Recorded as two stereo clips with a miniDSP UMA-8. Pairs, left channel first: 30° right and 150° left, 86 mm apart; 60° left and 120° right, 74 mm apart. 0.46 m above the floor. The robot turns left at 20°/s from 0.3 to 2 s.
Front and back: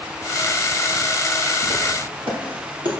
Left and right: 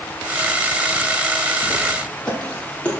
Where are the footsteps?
145° left, 4.5 m; by 2.9 s 130° left, 5 m.